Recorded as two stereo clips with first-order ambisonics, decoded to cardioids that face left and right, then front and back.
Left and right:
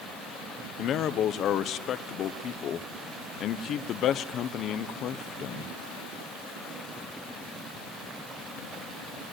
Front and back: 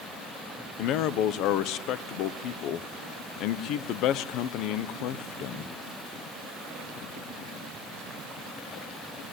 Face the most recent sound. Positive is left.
turn(degrees=40)